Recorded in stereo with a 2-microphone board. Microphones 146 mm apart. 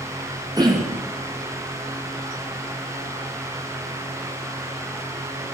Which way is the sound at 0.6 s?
30° right (ahead or behind).